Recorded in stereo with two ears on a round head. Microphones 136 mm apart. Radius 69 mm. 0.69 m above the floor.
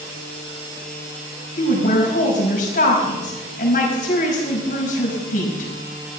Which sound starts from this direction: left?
A woman speaking, at 1.6 s.